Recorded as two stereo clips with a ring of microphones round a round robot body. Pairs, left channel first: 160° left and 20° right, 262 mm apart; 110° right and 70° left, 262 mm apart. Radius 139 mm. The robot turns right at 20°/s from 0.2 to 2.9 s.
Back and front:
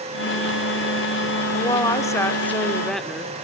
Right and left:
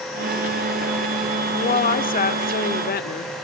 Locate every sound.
1.5 s a woman speaking: 145° right, 0.9 m; by 3.3 s 115° right, 0.9 m